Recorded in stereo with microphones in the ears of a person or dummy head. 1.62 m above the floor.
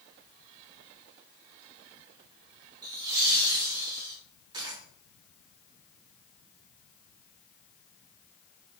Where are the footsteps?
I don't hear footsteps.